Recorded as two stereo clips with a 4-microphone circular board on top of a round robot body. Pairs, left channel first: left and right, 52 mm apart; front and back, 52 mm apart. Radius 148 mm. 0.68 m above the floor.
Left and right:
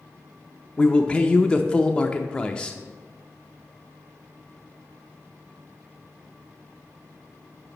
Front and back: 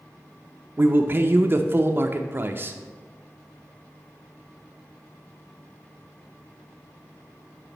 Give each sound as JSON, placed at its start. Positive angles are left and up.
{"t": 0.8, "sound": "a man speaking", "azimuth_deg": 155, "distance_m": 0.6}